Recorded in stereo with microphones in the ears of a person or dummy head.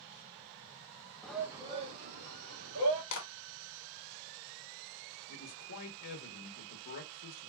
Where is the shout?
5° left (ahead or behind), 0.5 m; by 3.0 s 60° right (ahead or behind), 1.4 m.